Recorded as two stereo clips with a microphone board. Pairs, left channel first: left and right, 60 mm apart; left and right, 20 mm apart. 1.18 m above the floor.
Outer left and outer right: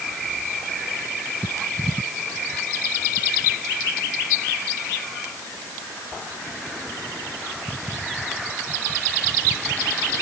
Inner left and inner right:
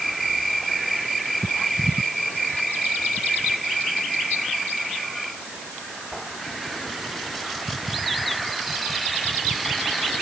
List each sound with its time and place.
Only background noise.